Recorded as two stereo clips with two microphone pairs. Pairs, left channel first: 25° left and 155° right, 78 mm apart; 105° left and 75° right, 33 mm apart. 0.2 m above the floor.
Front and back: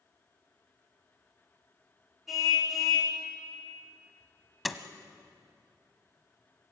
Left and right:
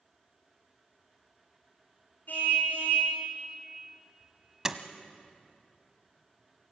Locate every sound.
2.3 s a car horn: 115° left, 5.5 m
4.7 s a door slam: 65° right, 1.1 m